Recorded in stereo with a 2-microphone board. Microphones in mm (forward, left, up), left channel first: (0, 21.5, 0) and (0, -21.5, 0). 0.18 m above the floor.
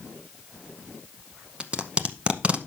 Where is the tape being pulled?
25° right (ahead or behind), 0.8 m.